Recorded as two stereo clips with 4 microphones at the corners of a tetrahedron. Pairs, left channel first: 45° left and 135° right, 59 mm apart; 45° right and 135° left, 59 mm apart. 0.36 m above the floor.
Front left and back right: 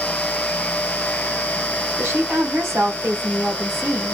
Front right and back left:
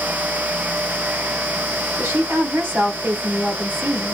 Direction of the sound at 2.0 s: 170° right.